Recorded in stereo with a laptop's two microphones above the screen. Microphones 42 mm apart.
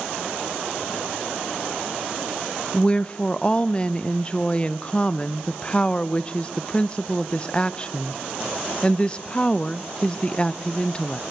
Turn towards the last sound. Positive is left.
turn(degrees=25)  # may be behind; listen again after turning